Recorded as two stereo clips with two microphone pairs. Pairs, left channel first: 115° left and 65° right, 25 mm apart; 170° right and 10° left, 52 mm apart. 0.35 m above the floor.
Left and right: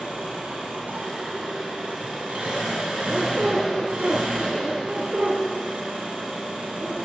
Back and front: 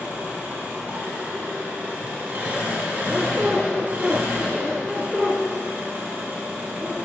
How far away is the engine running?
About 2.5 m.